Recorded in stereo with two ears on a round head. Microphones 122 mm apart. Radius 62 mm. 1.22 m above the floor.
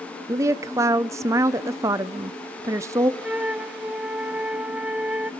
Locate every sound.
0.3 s a woman speaking: 20° right (ahead or behind), 0.6 m
3.2 s a flute: 10° right (ahead or behind), 0.6 m